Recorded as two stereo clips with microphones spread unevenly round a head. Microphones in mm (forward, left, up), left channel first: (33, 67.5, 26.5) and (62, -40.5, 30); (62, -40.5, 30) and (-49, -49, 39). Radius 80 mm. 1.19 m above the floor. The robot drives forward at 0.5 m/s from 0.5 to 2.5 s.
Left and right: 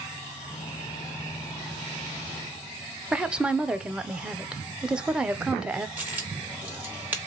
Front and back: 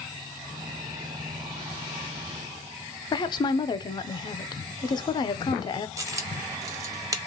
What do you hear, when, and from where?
3.1 s a woman speaking: 5° left, 0.6 m
6.0 s a dropped coin: 145° right, 0.5 m